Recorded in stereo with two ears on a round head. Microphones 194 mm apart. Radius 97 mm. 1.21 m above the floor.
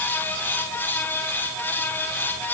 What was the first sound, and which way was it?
Only background noise.